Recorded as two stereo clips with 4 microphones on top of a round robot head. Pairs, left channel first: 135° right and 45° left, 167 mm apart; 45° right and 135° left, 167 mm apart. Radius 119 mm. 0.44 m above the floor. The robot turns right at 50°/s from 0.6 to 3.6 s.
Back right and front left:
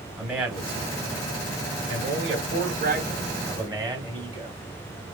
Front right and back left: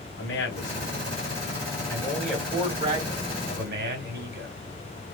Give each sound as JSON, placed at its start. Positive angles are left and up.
{"t": 0.2, "sound": "a man speaking", "azimuth_deg": -40, "distance_m": 2.5}